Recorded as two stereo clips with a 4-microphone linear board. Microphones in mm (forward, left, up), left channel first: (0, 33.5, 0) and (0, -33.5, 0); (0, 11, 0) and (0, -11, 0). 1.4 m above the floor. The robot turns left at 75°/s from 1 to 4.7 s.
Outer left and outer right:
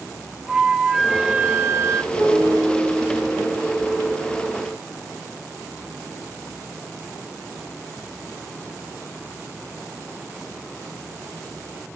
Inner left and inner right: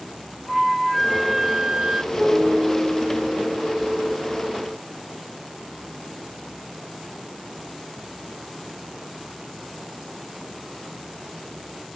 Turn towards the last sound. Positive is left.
turn(degrees=-55)